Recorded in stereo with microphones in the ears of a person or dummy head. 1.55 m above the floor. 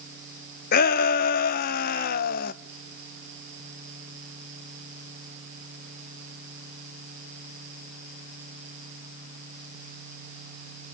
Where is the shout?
50° left (ahead or behind), 0.9 m.